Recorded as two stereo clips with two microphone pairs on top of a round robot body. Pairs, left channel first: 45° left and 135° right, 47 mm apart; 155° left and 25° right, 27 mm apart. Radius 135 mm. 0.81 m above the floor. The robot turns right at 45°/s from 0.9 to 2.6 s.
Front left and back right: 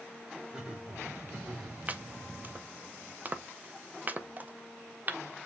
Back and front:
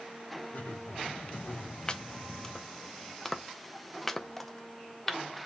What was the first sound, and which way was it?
Laughter, 160° left.